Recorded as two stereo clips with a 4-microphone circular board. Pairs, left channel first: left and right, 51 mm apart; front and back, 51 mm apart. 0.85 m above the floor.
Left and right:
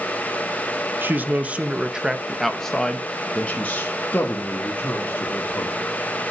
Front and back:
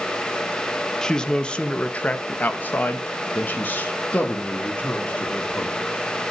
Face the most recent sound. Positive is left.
turn(degrees=55)